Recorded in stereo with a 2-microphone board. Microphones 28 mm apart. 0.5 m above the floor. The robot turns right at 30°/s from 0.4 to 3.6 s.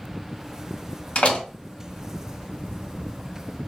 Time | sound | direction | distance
1.1 | a door slam | 50° left (ahead or behind) | 1.0 m